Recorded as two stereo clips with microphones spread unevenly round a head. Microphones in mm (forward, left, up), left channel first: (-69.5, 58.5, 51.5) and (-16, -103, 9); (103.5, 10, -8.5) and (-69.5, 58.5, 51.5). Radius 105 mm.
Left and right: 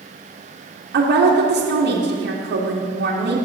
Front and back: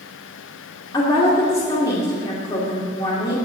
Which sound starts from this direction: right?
A woman speaking, at 0.9 s.